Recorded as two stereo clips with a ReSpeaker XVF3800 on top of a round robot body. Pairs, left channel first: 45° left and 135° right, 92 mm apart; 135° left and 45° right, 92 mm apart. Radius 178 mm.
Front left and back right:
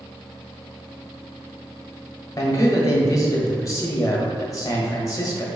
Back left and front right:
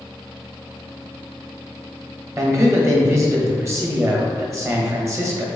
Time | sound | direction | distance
2.4 | a man speaking | 5° left | 1.4 m